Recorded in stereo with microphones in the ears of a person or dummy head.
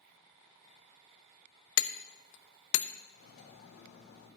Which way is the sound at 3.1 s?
75° left (ahead or behind).